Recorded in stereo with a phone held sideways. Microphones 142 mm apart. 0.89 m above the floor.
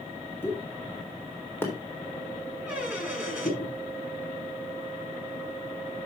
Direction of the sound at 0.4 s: 15° left (ahead or behind).